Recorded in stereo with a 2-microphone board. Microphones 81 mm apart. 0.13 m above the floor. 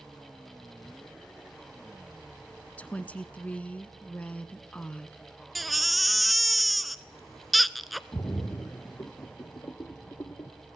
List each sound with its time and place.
2.8 s a woman speaking: 20° left (ahead or behind), 1.1 m
5.5 s a baby crying: centre (ahead or behind), 0.6 m
8.1 s a splash: 40° left (ahead or behind), 1.3 m